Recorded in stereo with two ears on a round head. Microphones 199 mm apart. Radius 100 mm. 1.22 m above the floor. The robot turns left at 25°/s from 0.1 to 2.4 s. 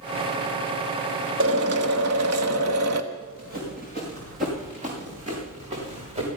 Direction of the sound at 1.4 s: 60° right (ahead or behind).